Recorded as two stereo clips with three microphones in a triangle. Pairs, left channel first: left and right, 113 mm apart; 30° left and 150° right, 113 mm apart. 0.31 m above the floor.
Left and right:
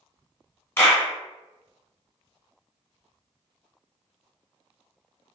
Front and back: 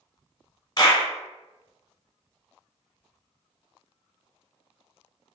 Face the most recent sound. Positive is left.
turn(degrees=35)